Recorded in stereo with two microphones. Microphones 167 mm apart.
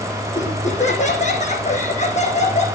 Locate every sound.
0.3 s laughter: 45° left (ahead or behind), 4.5 m